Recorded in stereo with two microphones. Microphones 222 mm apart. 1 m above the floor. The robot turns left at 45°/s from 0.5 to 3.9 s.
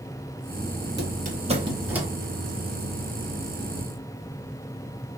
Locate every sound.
1.0 s a squeak: 50° right (ahead or behind), 0.7 m; by 2.1 s 5° right (ahead or behind), 0.7 m